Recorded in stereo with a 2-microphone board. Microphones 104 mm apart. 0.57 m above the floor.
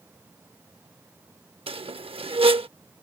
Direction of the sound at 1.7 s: 70° right (ahead or behind).